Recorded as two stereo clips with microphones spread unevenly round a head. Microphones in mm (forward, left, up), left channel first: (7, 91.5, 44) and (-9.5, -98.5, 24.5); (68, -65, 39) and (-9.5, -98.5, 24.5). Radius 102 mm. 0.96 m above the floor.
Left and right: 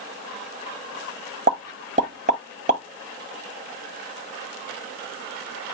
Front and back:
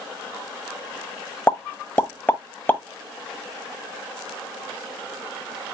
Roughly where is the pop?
Ahead right.